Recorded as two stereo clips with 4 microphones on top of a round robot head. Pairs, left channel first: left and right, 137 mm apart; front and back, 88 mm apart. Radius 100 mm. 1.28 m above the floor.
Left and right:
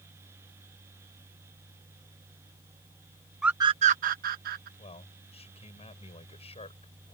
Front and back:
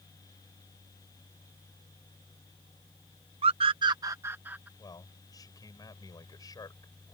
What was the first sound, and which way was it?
A scream, 175° right.